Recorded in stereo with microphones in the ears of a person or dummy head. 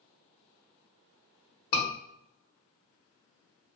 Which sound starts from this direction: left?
A scream, at 1.7 s.